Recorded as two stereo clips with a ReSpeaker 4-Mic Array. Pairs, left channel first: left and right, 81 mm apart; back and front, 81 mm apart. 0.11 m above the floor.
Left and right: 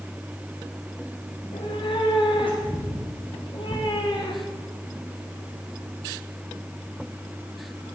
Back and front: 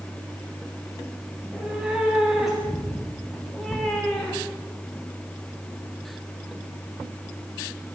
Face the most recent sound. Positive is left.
turn(degrees=105)